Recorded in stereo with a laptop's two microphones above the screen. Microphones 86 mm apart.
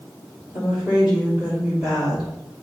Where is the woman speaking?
5° right (ahead or behind), 3 m.